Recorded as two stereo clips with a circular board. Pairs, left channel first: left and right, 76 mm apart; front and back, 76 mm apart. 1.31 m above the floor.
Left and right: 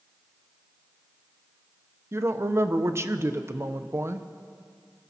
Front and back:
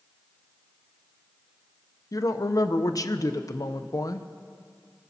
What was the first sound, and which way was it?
A woman speaking, 35° right.